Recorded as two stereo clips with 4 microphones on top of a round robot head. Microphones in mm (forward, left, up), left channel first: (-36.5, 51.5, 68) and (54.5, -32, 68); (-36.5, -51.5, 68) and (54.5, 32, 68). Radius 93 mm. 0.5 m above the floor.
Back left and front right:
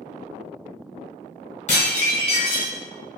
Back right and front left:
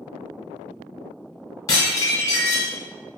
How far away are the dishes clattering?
About 1.3 m.